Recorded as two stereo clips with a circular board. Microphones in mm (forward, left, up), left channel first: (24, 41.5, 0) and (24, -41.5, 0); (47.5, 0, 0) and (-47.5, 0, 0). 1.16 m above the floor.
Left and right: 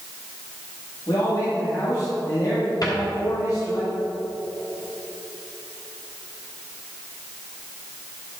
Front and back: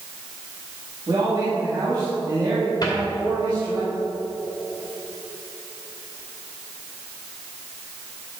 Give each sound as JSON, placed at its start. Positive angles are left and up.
{"t": 1.1, "sound": "a man speaking", "azimuth_deg": 135, "distance_m": 2.5}
{"t": 2.8, "sound": "a cupboard door", "azimuth_deg": 45, "distance_m": 2.5}